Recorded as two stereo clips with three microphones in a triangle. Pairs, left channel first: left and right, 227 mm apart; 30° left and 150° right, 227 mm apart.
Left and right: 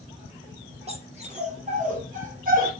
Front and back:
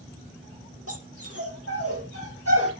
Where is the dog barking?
155° right, 5.5 m; by 2.7 s 140° right, 6 m.